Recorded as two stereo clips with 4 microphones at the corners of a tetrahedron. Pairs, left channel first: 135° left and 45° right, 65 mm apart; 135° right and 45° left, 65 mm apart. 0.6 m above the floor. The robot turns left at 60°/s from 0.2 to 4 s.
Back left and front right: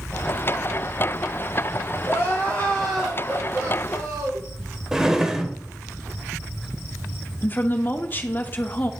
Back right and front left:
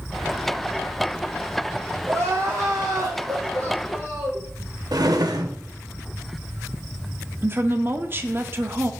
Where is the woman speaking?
90° left, 0.9 m.